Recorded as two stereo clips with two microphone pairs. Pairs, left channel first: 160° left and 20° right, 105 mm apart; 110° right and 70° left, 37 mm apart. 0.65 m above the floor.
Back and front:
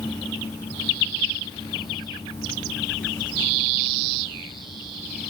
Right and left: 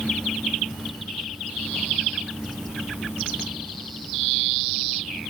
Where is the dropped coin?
I don't hear a dropped coin.